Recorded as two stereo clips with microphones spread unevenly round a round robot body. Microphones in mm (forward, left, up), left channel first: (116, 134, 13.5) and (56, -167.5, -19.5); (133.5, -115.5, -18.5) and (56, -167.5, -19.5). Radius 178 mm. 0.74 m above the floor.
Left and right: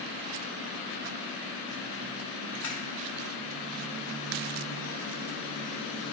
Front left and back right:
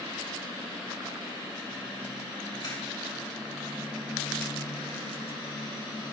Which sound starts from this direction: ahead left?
A camera shutter, at 2.6 s.